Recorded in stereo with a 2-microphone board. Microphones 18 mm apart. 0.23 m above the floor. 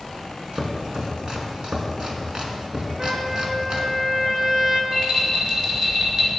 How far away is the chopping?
About 2 m.